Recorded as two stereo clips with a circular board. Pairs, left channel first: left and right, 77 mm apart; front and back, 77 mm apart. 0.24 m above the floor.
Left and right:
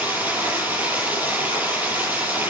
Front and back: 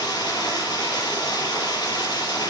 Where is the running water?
25° right, 6 m.